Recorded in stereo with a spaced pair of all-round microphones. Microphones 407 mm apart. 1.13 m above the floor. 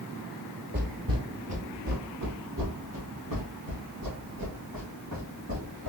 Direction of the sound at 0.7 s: 25° right (ahead or behind).